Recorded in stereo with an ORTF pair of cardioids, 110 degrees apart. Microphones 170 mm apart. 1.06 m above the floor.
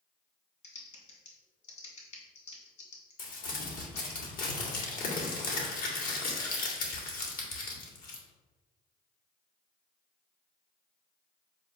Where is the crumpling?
60° left, 2 m.